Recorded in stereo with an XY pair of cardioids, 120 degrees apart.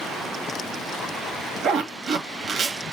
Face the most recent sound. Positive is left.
turn(degrees=-60)